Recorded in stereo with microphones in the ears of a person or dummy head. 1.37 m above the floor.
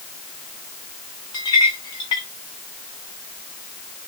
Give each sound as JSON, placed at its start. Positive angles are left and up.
{"t": 1.3, "sound": "a clink", "side_deg": 25, "distance_m": 0.7}